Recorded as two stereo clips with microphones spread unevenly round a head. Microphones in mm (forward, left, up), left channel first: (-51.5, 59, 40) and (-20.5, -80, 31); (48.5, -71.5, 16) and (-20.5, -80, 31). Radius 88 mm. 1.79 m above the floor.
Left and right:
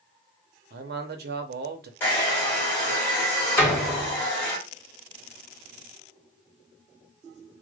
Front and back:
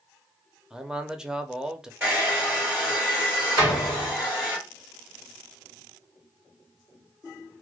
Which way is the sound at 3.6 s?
170° left.